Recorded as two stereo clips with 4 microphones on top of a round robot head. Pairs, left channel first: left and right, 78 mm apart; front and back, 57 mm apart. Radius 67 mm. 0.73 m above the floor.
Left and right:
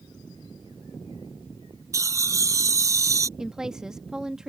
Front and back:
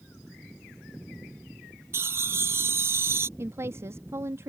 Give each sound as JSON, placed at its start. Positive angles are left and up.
{"t": 1.9, "sound": "laughter", "azimuth_deg": -135}
{"t": 3.4, "sound": "a woman speaking", "azimuth_deg": -170}